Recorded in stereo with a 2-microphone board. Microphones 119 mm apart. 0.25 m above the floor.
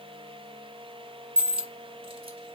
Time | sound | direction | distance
1.4 | a dropped coin | 50° right (ahead or behind) | 0.9 m